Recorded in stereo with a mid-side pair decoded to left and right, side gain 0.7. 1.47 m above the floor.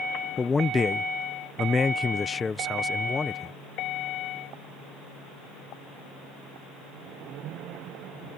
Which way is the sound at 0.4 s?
20° left.